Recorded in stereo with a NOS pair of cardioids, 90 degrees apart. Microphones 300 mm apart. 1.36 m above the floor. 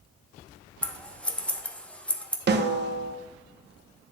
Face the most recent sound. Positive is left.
turn(degrees=-35)